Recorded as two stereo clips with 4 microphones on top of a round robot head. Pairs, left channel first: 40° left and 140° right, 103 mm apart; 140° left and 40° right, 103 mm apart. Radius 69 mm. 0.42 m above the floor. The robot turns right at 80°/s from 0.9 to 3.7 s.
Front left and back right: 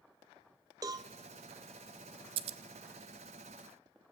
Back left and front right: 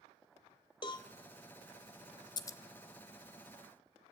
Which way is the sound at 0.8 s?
175° left.